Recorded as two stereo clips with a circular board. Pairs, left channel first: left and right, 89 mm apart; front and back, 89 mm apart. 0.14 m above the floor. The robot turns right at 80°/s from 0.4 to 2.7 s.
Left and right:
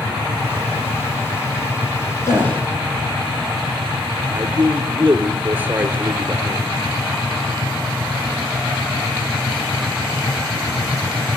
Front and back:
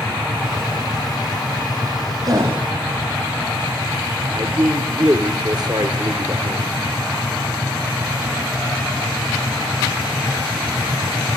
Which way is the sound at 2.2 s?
145° left.